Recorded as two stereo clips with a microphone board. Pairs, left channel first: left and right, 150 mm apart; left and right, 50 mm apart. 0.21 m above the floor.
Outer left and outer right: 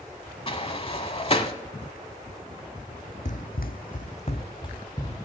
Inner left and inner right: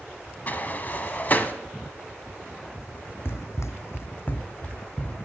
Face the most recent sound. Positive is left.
turn(degrees=25)  # may be behind; listen again after turning